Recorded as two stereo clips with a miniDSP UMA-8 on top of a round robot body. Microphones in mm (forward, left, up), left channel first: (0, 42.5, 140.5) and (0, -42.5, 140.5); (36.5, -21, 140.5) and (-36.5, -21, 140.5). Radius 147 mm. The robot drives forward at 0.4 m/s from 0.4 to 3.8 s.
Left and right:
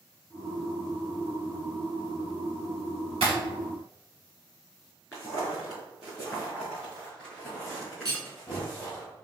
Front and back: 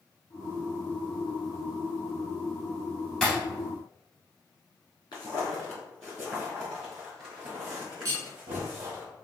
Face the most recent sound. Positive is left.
turn(degrees=-135)